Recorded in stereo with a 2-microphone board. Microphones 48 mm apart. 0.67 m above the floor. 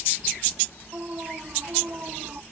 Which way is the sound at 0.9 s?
35° right (ahead or behind).